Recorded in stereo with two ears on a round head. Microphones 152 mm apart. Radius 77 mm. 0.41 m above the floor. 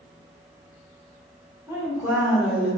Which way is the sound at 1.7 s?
20° right (ahead or behind).